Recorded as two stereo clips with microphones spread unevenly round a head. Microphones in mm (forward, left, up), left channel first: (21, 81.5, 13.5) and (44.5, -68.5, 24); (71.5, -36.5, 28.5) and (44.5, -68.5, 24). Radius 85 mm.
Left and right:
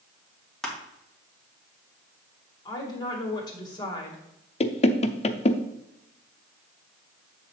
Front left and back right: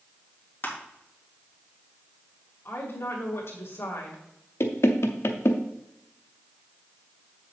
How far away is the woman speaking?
About 2.5 m.